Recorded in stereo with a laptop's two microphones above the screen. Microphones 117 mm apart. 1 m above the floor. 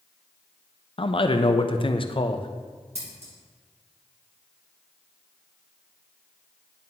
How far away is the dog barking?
I don't hear a dog barking.